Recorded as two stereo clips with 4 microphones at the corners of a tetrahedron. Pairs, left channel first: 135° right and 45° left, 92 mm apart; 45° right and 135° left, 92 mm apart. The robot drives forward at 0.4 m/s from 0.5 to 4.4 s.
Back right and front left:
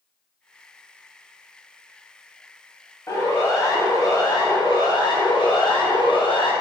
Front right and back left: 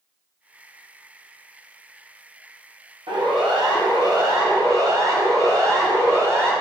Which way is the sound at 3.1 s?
165° left.